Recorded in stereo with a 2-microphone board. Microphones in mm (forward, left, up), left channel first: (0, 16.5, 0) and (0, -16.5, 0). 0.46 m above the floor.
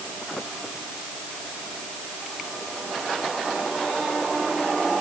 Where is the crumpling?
No crumpling in this recording.